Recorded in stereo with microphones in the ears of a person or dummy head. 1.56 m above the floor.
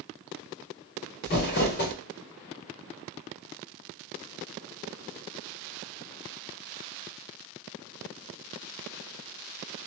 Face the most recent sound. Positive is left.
turn(degrees=40)  # may be behind; listen again after turning